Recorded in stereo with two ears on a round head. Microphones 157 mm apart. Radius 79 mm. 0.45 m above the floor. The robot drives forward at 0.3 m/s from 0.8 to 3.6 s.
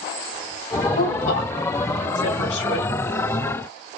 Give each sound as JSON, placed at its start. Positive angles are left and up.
{"t": 0.9, "sound": "a woman speaking", "side_deg": 65, "distance_m": 2.0}